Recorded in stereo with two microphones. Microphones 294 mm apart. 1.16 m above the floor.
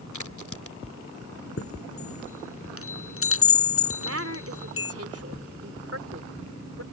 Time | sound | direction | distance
0.1 | a crack | 65° left (ahead or behind) | ?
1.6 | a chime | 45° left (ahead or behind) | ?
4.0 | a woman speaking | 50° right (ahead or behind) | ?